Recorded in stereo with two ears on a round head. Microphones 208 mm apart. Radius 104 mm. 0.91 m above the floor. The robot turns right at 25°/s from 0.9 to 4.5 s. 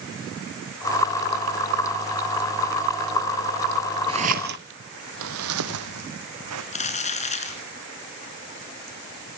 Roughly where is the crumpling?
Left.